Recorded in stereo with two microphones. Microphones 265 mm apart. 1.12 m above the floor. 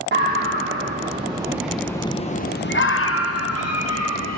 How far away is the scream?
About 1.4 m.